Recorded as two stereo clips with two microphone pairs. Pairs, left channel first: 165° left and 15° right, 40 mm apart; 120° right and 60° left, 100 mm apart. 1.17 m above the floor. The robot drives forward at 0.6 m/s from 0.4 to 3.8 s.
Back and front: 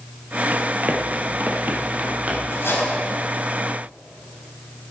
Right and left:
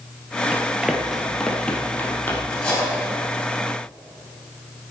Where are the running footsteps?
5° right, 1.6 m; by 2.4 s 55° right, 2.5 m.